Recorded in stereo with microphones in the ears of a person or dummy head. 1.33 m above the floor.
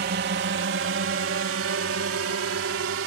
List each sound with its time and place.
0.0 s a drone: 45° right (ahead or behind); by 3.1 s 75° right (ahead or behind)